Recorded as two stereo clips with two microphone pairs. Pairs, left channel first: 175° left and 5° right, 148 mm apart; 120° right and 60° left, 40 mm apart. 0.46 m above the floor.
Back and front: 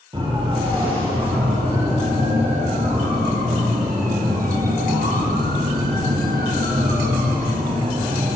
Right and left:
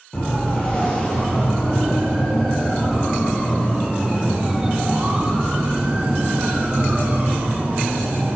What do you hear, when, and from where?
0.1 s a siren: 60° right, 9.5 m; by 8.4 s 30° left, 6 m